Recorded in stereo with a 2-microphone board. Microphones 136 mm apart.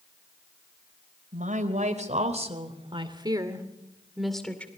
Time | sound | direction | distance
1.3 | a woman speaking | 65° right (ahead or behind) | 3.5 m